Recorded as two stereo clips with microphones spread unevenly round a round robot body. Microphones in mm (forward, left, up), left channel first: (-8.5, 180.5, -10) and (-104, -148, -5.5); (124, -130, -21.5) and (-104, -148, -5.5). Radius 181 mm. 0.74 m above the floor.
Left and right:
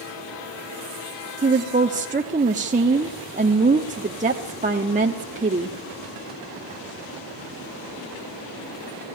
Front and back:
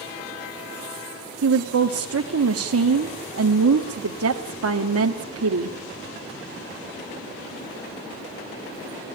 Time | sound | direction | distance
1.4 | a woman speaking | 175° right | 1.2 m